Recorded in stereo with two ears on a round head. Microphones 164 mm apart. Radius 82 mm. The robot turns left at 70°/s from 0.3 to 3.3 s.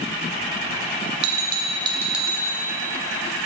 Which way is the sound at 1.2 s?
110° right.